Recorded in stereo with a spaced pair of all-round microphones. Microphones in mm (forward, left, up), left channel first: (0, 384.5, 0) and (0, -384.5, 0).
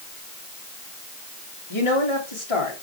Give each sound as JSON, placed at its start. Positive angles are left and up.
{"t": 1.7, "sound": "a woman speaking", "side_deg": 35, "distance_m": 2.5}